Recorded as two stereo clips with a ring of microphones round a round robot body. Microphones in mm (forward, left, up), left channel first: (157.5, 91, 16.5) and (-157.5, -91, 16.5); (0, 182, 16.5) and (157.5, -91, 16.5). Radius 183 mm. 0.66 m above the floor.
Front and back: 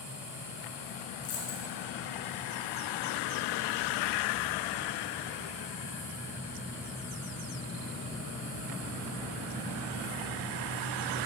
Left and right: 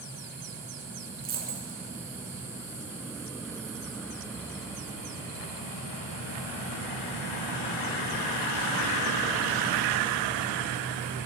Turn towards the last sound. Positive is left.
turn(degrees=0)